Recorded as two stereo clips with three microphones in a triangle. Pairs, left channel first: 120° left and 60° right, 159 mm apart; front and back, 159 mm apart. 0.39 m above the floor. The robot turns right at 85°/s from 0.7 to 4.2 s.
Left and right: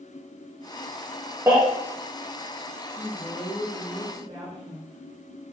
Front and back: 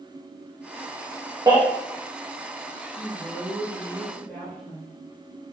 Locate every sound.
1.5 s a baby crying: 125° right, 1.2 m; by 1.6 s 120° right, 1.2 m
3.0 s a woman speaking: straight behind, 1.1 m; by 5.0 s 75° right, 1.1 m